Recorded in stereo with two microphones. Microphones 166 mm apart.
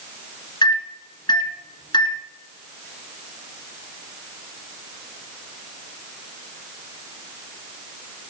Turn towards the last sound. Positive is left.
turn(degrees=25)  # may be behind; listen again after turning